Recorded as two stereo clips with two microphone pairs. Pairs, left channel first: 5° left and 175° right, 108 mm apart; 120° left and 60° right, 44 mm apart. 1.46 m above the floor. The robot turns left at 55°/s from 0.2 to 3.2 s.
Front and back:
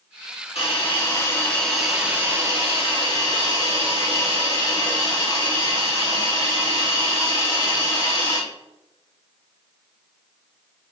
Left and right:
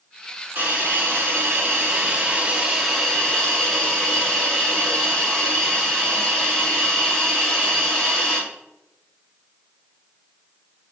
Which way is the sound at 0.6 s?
15° right.